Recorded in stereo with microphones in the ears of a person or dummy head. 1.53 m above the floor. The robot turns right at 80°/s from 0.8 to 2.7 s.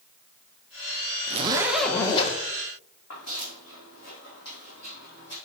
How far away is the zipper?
About 1.1 m.